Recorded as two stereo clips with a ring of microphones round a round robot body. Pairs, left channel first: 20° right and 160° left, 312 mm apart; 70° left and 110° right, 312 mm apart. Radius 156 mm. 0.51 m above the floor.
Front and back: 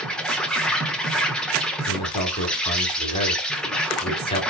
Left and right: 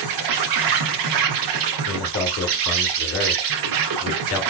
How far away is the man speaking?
About 1.2 m.